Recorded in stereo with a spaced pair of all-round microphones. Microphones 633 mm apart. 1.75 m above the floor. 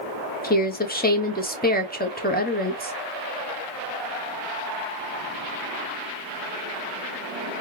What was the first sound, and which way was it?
A woman speaking, 15° left (ahead or behind).